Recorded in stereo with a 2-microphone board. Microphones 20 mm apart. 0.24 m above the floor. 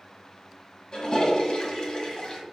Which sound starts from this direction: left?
A toilet flushing, at 0.9 s.